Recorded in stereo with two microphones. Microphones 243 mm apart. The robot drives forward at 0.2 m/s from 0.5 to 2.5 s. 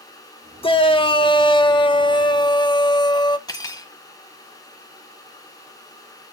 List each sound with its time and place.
0.6 s a shout: 20° left (ahead or behind), 1.0 m
3.5 s cutlery clinking: 15° left (ahead or behind), 1.6 m